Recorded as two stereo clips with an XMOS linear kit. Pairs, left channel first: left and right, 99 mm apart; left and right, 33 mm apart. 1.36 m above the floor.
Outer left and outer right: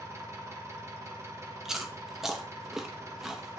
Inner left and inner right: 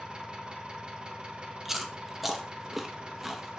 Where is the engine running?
30° right (ahead or behind), 1.2 m.